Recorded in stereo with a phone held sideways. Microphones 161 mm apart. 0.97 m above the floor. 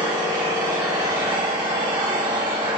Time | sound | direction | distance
0.0 | an engine running | 25° right (ahead or behind) | 3.5 m